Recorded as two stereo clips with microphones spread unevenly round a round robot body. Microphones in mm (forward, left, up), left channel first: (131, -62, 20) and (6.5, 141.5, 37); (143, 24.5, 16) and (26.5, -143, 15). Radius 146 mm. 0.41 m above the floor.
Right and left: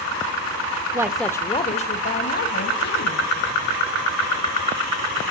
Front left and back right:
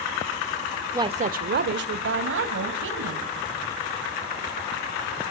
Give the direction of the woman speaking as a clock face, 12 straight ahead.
6 o'clock.